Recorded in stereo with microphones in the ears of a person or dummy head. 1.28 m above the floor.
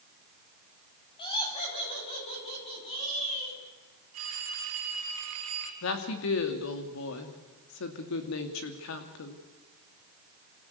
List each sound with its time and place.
1.2 s laughter: 25° left (ahead or behind), 8 m; by 3.6 s 35° left (ahead or behind), 10 m
4.1 s a phone ringing: 80° right, 5 m
5.8 s a woman speaking: 70° left (ahead or behind), 2.5 m